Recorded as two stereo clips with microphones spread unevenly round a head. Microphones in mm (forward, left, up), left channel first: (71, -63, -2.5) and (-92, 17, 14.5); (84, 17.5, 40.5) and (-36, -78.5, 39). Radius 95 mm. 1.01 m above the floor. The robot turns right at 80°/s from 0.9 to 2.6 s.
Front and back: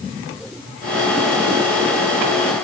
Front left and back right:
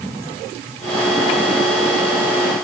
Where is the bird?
I don't hear a bird.